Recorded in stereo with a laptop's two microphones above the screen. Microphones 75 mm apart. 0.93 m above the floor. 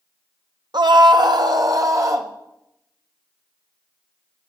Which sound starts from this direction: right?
A scream, at 0.7 s.